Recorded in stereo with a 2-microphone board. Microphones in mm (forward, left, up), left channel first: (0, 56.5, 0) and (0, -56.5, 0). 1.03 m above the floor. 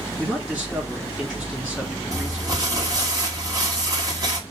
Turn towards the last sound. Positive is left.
turn(degrees=-35)  # may be behind; listen again after turning